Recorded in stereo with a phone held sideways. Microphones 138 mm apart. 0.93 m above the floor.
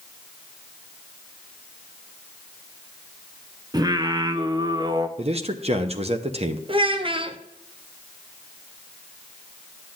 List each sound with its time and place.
3.7 s singing: 30° right (ahead or behind), 0.5 m
5.2 s a man speaking: 50° right (ahead or behind), 0.7 m
6.7 s a child speaking: 40° right (ahead or behind), 0.7 m